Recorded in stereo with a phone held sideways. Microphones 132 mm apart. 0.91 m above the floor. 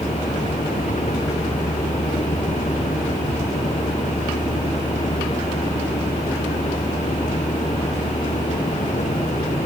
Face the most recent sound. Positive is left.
turn(degrees=75)  # may be behind; listen again after turning